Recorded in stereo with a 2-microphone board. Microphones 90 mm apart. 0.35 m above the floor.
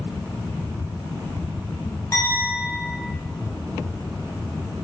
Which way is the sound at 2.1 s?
35° left (ahead or behind).